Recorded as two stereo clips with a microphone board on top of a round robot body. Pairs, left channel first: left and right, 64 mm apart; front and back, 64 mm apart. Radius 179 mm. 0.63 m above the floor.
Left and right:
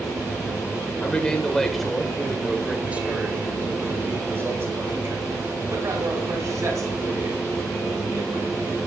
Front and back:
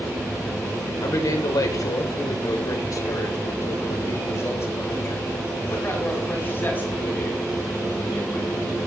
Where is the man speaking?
20° left, 3.5 m; by 8.8 s 65° right, 9 m.